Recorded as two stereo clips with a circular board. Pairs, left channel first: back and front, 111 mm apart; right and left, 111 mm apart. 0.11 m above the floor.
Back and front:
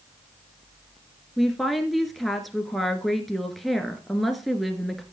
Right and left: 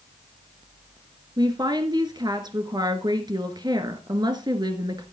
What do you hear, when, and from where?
1.4 s a woman speaking: 90° left, 1.7 m